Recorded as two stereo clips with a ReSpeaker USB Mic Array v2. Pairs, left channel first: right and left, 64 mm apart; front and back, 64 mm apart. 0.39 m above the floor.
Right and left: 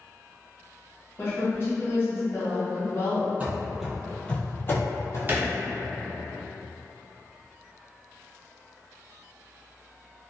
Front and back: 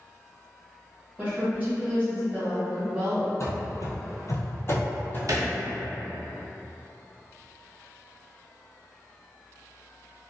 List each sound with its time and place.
1.2 s a woman speaking: 125° right, 1.3 m
3.4 s running footsteps: 30° left, 0.7 m; by 5.2 s 60° right, 0.8 m
5.3 s a thud: 150° left, 0.5 m